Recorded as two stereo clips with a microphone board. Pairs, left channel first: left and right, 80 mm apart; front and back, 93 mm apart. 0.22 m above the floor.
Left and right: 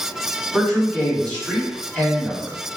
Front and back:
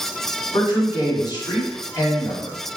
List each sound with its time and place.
0.5 s a man speaking: 15° left, 1.4 m